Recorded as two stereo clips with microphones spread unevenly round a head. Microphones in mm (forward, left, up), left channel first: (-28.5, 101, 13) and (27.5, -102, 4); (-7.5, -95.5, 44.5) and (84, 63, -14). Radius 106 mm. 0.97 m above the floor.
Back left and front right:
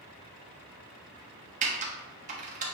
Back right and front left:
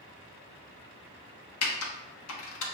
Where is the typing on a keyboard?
130° right, 0.8 m.